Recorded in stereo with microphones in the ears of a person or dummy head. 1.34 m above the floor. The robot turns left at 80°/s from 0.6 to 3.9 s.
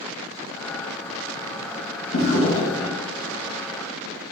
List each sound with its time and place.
2.1 s a drawer: 75° left, 0.8 m; by 3.0 s 5° left, 0.8 m